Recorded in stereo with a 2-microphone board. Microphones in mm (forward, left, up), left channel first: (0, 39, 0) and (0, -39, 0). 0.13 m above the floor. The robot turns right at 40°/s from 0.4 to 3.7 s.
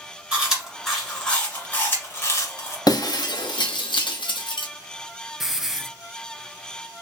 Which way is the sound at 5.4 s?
5° right (ahead or behind).